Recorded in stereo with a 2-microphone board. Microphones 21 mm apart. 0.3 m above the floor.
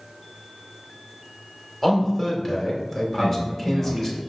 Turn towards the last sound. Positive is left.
turn(degrees=-50)  # may be behind; listen again after turning